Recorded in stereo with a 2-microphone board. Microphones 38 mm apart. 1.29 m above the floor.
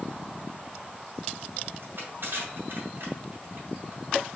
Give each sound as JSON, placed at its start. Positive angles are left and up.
{"t": 1.8, "sound": "crushing", "side_deg": -60, "distance_m": 2.0}